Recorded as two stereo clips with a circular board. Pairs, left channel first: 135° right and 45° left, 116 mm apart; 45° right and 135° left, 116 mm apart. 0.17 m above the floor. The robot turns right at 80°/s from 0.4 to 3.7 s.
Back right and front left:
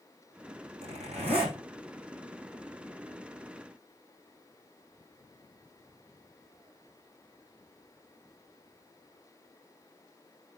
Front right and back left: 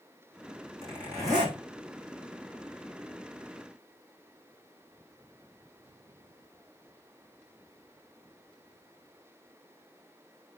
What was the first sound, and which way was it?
A zipper, 40° left.